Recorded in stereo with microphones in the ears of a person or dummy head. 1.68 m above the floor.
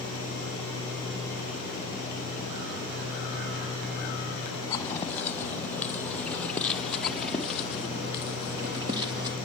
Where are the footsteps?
10° left (ahead or behind), 3 m; by 9.4 s 20° right (ahead or behind), 1.8 m.